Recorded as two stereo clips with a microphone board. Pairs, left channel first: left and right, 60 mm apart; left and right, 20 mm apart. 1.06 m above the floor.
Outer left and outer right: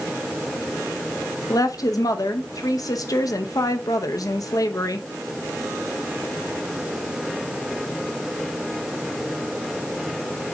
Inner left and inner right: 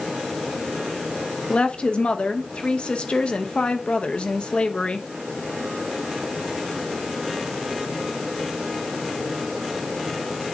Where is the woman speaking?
75° left (ahead or behind), 0.9 m.